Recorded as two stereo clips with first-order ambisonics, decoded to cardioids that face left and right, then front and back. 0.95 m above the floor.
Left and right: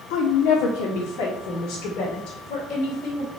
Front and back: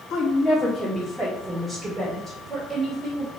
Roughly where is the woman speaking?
Ahead left.